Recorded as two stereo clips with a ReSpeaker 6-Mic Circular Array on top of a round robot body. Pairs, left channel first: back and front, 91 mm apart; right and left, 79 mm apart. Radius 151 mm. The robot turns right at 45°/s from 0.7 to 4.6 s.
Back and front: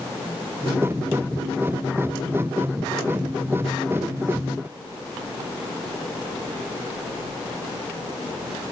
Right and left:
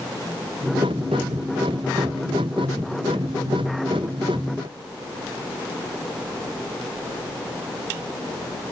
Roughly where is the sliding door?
No sliding door in this recording.